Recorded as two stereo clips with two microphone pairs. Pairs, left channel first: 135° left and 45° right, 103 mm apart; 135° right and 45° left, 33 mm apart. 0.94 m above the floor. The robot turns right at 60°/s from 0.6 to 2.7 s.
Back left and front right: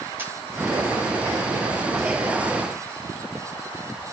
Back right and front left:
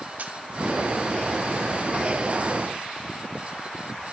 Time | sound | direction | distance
0.2 | a camera shutter | 20° left | 1.5 m